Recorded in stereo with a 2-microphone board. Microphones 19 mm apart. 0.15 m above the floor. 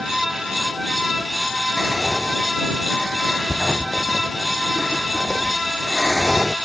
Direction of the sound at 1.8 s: 30° right (ahead or behind).